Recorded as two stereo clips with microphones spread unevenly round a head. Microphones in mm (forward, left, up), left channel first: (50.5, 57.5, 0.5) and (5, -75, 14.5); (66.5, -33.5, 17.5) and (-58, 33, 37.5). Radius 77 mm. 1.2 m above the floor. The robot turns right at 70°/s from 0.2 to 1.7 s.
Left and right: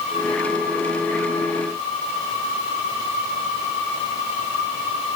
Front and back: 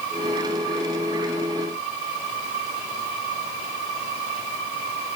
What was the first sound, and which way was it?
Only background noise.